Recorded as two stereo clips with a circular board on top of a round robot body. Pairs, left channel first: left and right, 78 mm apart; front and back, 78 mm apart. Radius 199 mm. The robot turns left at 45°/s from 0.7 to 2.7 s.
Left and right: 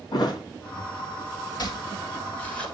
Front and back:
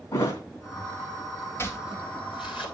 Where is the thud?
55° left, 3 m.